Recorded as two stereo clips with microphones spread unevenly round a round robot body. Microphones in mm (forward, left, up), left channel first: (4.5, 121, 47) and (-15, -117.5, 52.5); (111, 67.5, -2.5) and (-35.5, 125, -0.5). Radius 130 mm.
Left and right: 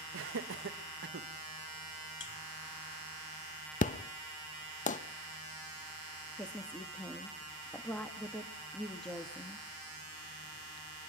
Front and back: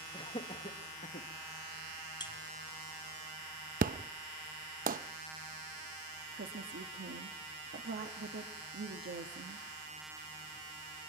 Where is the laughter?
85° right, 1.5 m; by 1.3 s 55° right, 1.4 m.